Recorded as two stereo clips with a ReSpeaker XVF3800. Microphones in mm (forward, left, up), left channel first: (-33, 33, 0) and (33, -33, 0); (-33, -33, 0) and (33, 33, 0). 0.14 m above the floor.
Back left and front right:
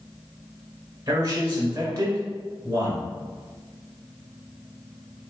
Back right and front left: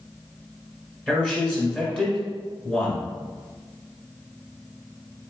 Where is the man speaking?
60° right, 1.6 m.